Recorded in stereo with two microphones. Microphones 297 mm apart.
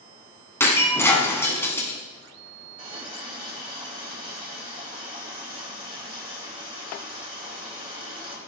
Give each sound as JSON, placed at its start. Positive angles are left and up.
{"t": 0.6, "sound": "breaking glass", "side_deg": 10, "distance_m": 1.8}
{"t": 2.8, "sound": "a running tap", "side_deg": -20, "distance_m": 4.5}